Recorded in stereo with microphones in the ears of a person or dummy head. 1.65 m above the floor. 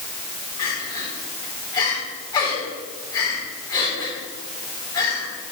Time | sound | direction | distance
0.6 | crying | 25° left (ahead or behind) | 4 m